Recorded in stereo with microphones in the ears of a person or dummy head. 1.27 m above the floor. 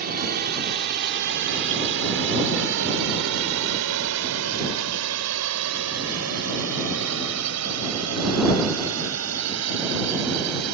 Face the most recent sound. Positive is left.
turn(degrees=-85)